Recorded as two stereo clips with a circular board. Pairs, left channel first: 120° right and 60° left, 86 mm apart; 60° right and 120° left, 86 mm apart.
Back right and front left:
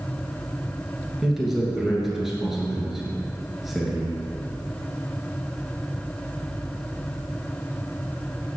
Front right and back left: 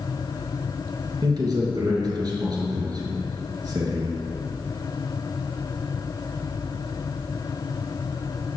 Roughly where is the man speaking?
Behind left.